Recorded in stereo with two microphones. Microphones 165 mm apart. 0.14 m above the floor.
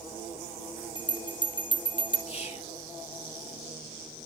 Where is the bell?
30° left (ahead or behind), 1.2 m.